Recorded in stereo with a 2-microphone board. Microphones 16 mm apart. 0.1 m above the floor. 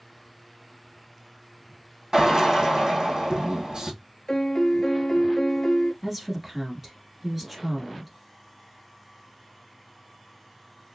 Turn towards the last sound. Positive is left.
turn(degrees=-20)  # may be behind; listen again after turning